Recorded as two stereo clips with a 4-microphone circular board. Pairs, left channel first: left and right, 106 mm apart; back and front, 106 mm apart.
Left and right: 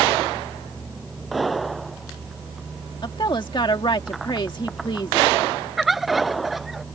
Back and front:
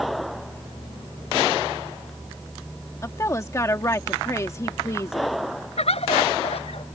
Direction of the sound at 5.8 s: Straight behind.